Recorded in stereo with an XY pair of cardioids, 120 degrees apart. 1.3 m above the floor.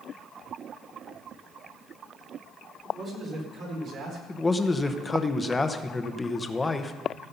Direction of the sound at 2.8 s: 45° right.